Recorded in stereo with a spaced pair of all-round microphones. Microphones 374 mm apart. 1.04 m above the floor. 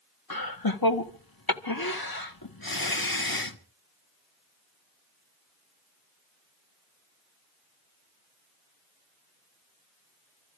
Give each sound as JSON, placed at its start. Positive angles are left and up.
{"t": 0.3, "sound": "laughter", "side_deg": 65, "distance_m": 1.5}